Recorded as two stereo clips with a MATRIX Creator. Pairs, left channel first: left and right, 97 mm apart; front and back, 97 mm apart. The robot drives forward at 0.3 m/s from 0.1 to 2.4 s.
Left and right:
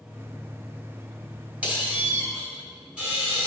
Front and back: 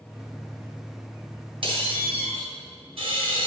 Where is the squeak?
165° right, 1.6 m.